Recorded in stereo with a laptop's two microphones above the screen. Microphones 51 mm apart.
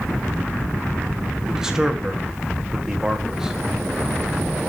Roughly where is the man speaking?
Centre.